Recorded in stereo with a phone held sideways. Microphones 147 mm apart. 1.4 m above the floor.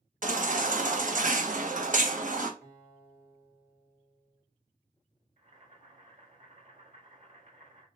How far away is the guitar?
About 3.5 m.